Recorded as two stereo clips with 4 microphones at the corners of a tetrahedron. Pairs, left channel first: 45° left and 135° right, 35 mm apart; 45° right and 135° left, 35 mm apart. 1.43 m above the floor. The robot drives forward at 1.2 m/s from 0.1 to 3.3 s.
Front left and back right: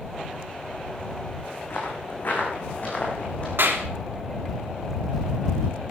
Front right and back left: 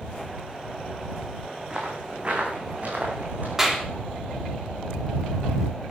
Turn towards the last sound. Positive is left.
turn(degrees=-150)